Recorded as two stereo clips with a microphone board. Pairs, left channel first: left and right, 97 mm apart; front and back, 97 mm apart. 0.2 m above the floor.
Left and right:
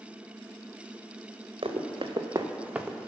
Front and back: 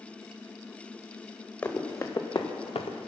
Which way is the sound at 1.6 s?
65° right.